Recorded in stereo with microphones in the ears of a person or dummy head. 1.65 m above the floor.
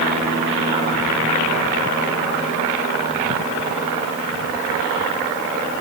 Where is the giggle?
I don't hear a giggle.